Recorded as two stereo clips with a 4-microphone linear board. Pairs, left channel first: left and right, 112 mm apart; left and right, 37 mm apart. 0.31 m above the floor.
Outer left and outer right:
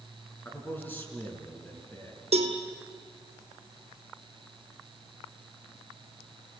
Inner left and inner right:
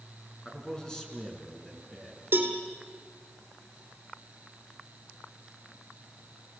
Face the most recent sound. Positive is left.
turn(degrees=-65)  # may be behind; listen again after turning